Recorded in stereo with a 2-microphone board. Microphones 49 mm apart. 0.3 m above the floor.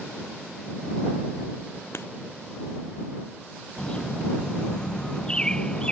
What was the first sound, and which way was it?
Writing, 60° left (ahead or behind).